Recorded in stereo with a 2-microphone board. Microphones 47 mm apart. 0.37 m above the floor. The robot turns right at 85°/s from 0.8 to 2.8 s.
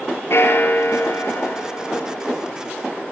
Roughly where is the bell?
Ahead left.